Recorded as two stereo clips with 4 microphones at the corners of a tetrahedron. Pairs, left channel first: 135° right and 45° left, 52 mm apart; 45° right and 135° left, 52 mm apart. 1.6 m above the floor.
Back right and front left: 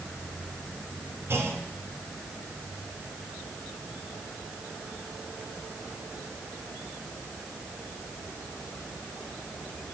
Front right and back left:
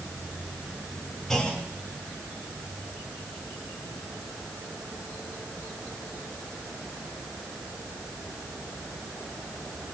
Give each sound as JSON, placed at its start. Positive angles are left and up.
{"t": 1.3, "sound": "a clunk", "azimuth_deg": 35, "distance_m": 2.0}